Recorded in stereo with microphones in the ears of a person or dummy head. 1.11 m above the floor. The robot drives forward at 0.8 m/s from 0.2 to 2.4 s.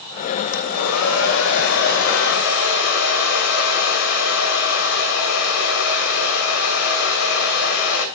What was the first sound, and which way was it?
A hair dryer, 80° left.